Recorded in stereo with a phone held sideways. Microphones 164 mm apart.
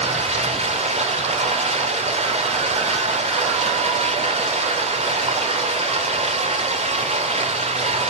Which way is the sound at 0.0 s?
40° right (ahead or behind).